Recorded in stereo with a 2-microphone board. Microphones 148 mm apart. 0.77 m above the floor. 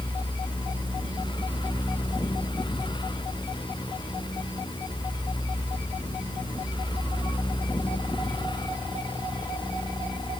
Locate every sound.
Only background noise.